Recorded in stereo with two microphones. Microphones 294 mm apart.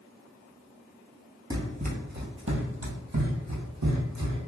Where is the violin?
No violin in this recording.